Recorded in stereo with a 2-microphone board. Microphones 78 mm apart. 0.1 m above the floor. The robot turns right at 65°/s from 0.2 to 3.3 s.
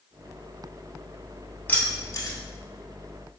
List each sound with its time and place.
1.7 s keys jangling: 25° left (ahead or behind), 1.2 m; by 2.4 s 50° left (ahead or behind), 1.2 m